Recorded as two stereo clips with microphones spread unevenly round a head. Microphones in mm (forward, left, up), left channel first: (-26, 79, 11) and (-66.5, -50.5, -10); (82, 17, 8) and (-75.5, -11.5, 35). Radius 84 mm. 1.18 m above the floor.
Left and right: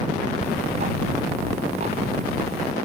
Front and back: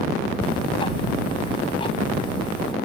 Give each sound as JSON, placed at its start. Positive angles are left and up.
{"t": 0.4, "sound": "ticking", "azimuth_deg": -55}